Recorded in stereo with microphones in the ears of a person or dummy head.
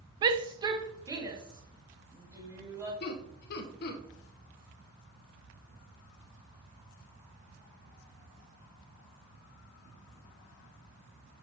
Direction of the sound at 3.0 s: 60° left (ahead or behind).